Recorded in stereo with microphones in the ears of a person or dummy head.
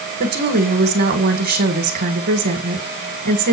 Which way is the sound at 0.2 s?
45° right (ahead or behind).